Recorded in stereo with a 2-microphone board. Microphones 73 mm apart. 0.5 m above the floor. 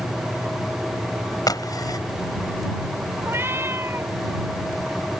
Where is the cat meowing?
35° right (ahead or behind).